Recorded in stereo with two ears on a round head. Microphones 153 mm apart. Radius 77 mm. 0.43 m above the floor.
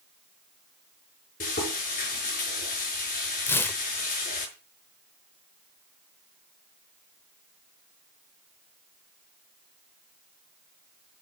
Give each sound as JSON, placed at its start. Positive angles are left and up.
{"t": 1.4, "sound": "frying", "side_deg": 50, "distance_m": 5.5}
{"t": 3.5, "sound": "tearing paper", "side_deg": 15, "distance_m": 0.5}